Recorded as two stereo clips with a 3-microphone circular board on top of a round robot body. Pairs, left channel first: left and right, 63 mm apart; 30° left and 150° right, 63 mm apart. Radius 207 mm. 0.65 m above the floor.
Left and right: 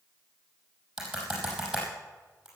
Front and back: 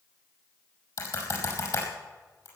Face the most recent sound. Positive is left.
turn(degrees=-5)